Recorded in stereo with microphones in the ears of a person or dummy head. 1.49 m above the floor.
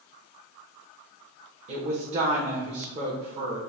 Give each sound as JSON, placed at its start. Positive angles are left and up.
{"t": 1.7, "sound": "a woman speaking", "side_deg": -40, "distance_m": 0.9}